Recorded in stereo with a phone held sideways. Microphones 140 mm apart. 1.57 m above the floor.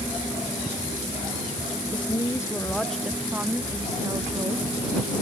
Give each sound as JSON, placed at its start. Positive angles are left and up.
{"t": 1.9, "sound": "a woman speaking", "side_deg": 35}